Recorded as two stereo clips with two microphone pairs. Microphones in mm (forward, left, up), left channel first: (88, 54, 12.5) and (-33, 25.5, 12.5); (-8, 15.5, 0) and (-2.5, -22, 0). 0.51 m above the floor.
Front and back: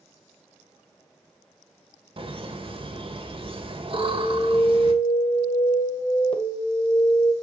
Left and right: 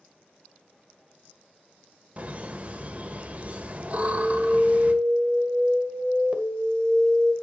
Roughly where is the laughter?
Behind right.